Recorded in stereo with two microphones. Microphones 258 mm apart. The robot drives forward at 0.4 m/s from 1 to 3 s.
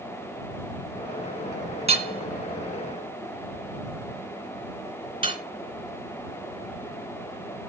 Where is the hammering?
25° right (ahead or behind), 1.8 m; by 5.4 s 20° right (ahead or behind), 2 m.